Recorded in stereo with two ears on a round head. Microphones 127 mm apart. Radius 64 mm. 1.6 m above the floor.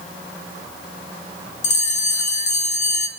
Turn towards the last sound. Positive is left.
turn(degrees=50)  # may be behind; listen again after turning